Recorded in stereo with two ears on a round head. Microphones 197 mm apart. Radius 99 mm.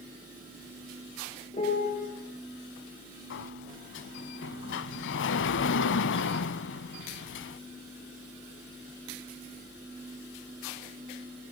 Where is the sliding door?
60° left (ahead or behind), 0.8 m.